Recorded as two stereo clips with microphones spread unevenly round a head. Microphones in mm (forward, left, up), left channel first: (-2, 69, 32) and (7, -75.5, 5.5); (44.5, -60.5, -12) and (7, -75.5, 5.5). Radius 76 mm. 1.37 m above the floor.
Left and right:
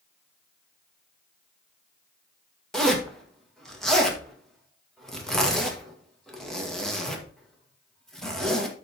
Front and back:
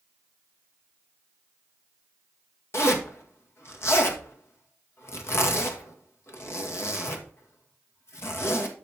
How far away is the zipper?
About 1.7 m.